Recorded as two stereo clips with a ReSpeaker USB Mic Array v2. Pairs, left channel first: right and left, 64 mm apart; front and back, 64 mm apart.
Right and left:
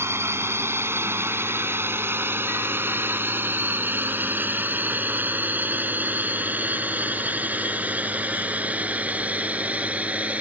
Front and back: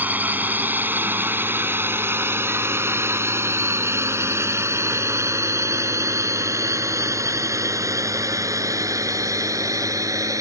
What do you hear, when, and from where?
0.0 s a drone: 125° left; by 10.4 s 155° left